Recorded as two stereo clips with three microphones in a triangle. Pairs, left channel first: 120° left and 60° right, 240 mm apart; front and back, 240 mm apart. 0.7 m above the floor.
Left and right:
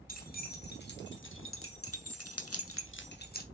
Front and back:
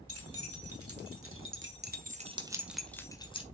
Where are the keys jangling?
170° left, 3 m; by 3.4 s 65° left, 1.7 m.